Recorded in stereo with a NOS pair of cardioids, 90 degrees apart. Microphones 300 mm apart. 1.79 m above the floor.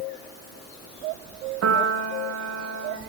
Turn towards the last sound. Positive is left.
turn(degrees=-55)